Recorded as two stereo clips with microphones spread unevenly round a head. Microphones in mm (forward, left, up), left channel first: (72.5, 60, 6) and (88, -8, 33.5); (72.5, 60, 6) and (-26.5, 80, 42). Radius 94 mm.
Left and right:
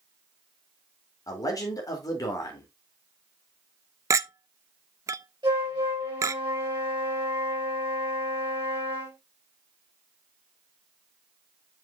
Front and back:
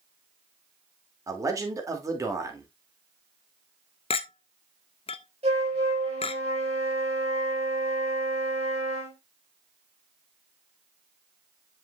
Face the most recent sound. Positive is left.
turn(degrees=-135)